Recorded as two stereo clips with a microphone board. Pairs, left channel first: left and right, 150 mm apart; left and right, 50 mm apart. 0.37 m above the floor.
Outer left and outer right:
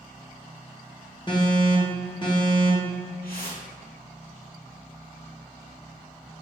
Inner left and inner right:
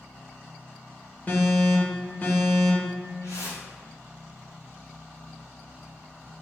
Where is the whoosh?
85° left, 1.6 m.